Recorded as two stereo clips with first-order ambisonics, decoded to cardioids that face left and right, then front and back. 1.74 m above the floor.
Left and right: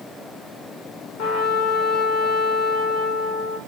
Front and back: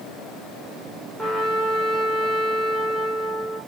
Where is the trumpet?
90° left, 5.5 m.